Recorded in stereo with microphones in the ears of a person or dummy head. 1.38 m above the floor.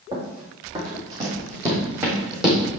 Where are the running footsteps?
35° right (ahead or behind), 3.5 m; by 2.7 s 5° right (ahead or behind), 3 m.